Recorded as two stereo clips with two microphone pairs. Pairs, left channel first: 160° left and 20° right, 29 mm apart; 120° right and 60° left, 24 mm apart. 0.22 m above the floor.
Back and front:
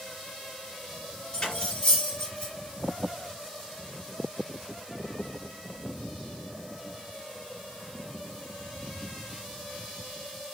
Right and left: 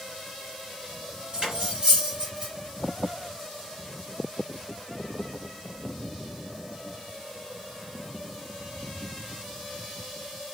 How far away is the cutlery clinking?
About 2.0 m.